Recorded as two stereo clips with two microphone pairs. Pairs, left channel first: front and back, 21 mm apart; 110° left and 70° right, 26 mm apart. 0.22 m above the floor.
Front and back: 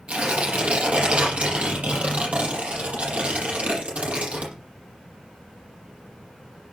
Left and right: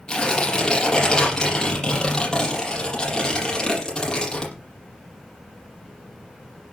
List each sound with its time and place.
0.1 s tearing paper: 170° left, 7 m